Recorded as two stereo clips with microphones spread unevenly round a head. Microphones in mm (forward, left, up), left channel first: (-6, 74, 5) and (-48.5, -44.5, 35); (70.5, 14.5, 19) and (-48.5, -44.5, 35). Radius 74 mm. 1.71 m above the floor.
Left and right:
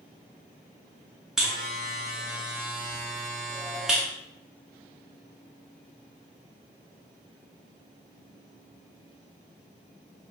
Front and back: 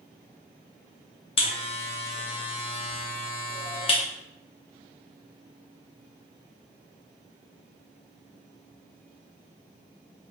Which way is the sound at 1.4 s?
25° right.